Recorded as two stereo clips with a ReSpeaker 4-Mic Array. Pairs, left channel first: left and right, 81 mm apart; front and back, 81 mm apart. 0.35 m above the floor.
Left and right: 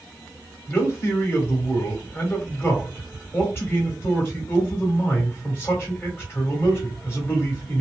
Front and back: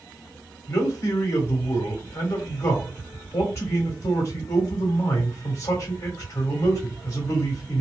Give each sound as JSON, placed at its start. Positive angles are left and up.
{"t": 0.7, "sound": "a man speaking", "azimuth_deg": 40, "distance_m": 1.6}